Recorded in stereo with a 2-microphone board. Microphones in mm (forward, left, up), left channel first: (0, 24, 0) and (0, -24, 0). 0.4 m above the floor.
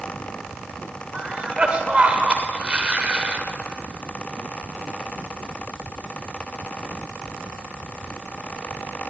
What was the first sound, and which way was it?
A cough, 25° right (ahead or behind).